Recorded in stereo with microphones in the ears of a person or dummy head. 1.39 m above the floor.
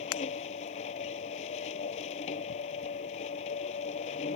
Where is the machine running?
35° left (ahead or behind).